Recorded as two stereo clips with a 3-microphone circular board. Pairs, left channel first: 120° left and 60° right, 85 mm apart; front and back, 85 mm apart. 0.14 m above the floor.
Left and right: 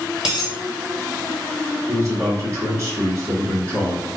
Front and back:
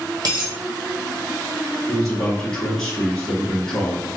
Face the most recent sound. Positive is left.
turn(degrees=-80)